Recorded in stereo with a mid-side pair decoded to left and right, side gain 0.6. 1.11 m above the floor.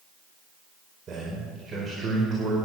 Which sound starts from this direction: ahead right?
A man speaking, at 1.1 s.